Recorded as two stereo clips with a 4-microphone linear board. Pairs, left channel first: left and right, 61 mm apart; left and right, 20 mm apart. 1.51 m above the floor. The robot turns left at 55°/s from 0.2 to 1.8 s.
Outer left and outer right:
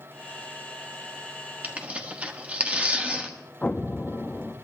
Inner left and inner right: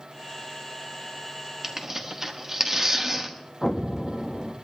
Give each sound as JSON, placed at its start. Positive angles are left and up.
{"t": 1.6, "sound": "tearing paper", "side_deg": -30, "distance_m": 1.3}
{"t": 3.6, "sound": "an explosion", "side_deg": 25, "distance_m": 0.7}